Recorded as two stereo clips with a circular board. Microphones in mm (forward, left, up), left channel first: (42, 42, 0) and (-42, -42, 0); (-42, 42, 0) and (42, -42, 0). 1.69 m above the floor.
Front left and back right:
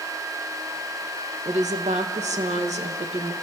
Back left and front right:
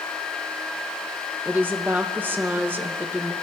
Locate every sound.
1.4 s a woman speaking: 120° right, 1.9 m